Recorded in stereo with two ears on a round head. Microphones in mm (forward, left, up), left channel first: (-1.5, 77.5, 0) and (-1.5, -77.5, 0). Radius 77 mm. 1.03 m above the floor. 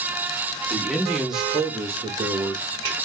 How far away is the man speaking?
About 1.9 m.